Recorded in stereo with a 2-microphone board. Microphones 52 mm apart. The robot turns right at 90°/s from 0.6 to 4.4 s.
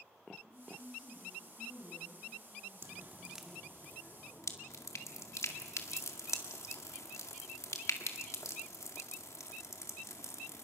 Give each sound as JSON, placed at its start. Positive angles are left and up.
{"t": 0.4, "sound": "a woman speaking", "azimuth_deg": -40, "distance_m": 7.5}
{"t": 2.8, "sound": "dripping", "side_deg": -55, "distance_m": 1.9}